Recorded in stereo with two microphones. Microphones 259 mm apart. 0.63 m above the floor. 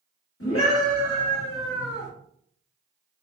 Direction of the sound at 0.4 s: 60° left (ahead or behind).